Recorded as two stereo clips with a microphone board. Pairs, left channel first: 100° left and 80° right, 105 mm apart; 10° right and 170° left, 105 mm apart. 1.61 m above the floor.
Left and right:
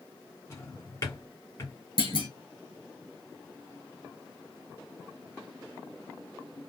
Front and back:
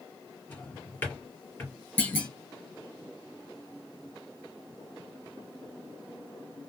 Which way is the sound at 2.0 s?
60° left.